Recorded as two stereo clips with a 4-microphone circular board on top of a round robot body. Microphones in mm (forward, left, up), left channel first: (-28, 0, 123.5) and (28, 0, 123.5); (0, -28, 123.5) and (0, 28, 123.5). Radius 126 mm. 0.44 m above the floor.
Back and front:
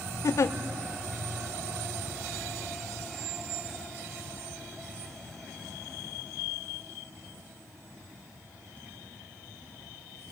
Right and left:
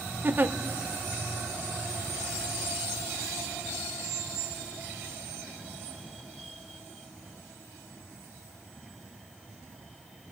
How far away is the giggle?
About 0.8 m.